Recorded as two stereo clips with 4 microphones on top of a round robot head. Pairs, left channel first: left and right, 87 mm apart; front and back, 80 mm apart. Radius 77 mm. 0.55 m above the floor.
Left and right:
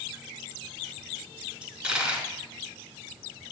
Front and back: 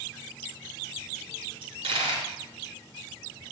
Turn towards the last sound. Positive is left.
turn(degrees=-165)